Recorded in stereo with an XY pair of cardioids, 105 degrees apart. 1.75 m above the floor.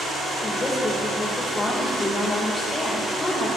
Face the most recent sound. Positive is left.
turn(degrees=30)